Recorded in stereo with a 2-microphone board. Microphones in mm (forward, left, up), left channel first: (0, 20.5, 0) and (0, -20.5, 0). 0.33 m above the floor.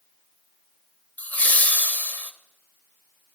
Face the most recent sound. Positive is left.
turn(degrees=35)  # may be behind; listen again after turning